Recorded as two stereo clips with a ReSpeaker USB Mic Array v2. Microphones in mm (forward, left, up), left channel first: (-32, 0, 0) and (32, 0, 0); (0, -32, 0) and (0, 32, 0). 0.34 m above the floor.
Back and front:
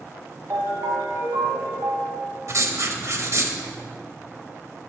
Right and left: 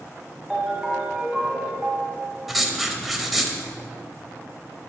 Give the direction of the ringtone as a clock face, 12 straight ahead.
12 o'clock.